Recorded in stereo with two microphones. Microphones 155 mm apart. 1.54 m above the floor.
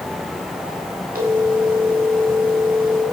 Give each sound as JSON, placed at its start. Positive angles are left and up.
{"t": 1.1, "sound": "a phone ringing", "side_deg": -70, "distance_m": 6.5}